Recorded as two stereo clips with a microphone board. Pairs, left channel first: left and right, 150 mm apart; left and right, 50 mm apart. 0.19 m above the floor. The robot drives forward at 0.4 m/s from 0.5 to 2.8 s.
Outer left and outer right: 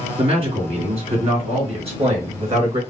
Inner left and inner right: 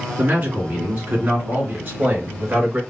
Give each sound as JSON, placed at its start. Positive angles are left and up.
{"t": 0.2, "sound": "a man speaking", "side_deg": -40, "distance_m": 2.5}